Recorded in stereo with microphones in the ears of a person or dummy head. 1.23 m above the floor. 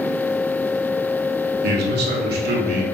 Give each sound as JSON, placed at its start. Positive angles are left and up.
{"t": 1.6, "sound": "a man speaking", "side_deg": -70, "distance_m": 3.0}